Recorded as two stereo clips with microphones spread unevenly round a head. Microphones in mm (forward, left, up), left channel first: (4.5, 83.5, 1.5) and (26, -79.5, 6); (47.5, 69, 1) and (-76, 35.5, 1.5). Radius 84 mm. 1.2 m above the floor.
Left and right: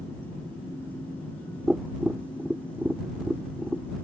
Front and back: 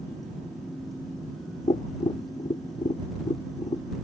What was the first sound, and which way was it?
Tapping, straight ahead.